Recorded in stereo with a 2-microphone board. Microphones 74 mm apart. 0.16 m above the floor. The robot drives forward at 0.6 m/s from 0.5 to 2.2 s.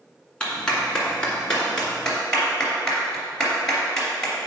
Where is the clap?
15° left (ahead or behind), 1.7 m; by 4.3 s 10° left (ahead or behind), 2.5 m.